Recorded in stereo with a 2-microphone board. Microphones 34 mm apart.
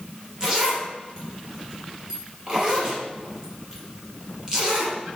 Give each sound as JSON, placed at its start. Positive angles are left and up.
{"t": 0.4, "sound": "a zipper", "side_deg": -25, "distance_m": 3.0}